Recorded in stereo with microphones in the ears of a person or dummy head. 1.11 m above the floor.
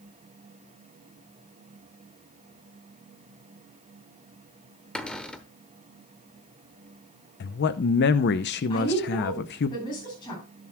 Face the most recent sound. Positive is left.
turn(degrees=25)  # may be behind; listen again after turning